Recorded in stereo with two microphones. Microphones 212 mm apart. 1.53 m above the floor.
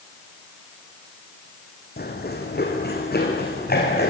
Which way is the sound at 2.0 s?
50° left (ahead or behind).